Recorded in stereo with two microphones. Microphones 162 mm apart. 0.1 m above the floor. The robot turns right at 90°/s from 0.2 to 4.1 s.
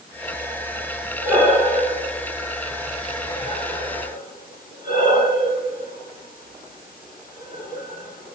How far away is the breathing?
About 4 m.